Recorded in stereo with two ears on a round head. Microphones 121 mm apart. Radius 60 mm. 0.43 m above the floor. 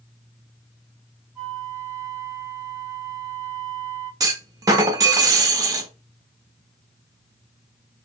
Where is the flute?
20° right (ahead or behind), 3 m.